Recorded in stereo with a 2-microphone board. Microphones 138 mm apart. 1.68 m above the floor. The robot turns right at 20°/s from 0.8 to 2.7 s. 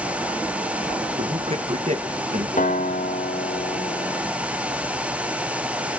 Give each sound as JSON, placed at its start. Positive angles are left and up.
{"t": 1.2, "sound": "a man speaking", "side_deg": -40, "distance_m": 1.7}
{"t": 2.6, "sound": "a guitar", "side_deg": 70, "distance_m": 2.5}